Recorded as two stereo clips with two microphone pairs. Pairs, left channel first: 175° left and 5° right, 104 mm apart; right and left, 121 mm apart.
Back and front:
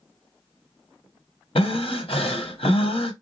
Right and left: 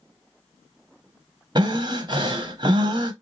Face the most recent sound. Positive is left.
turn(degrees=145)